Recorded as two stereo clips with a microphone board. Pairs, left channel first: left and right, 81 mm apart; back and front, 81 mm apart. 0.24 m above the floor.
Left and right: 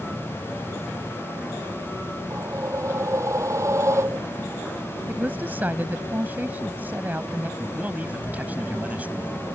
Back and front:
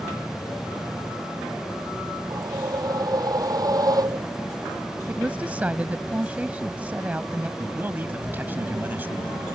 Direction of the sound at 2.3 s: 40° right.